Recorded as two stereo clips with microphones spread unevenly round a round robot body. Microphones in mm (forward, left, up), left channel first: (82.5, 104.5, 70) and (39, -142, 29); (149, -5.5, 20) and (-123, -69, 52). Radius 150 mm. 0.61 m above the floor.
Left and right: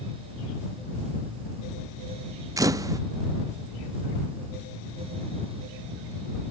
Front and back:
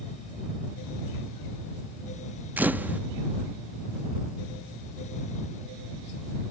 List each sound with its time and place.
2.6 s a camera shutter: 75° right